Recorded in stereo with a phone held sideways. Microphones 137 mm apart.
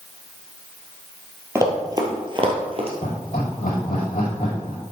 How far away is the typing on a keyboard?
No typing on a keyboard in this recording.